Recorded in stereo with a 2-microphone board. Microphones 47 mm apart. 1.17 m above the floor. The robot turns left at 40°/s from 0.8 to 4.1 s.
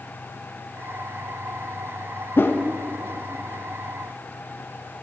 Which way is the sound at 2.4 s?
50° left (ahead or behind).